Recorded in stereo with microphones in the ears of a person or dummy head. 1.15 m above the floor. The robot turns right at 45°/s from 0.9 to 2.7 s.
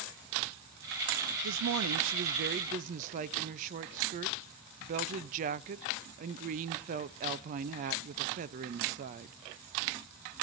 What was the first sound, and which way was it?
A woman speaking, 100° right.